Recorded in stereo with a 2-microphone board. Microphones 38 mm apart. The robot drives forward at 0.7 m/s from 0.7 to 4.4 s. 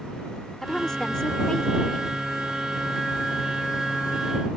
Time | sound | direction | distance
0.6 | a woman speaking | 15° left (ahead or behind) | ?